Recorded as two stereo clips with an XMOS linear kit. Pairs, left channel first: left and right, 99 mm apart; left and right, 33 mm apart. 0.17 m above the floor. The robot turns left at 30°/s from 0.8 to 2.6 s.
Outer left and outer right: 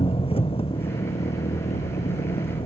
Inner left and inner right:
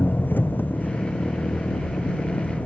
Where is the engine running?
115° left; by 2.7 s 60° left.